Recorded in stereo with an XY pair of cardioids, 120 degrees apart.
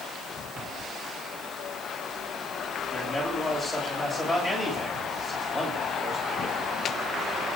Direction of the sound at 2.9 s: 5° right.